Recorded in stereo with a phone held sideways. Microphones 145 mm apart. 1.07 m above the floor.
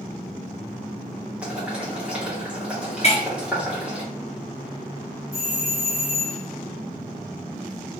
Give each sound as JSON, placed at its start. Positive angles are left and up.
{"t": 1.4, "sound": "boiling", "side_deg": -5, "distance_m": 1.2}
{"t": 3.0, "sound": "breaking glass", "side_deg": 40, "distance_m": 0.7}
{"t": 5.3, "sound": "a doorbell", "side_deg": 20, "distance_m": 1.5}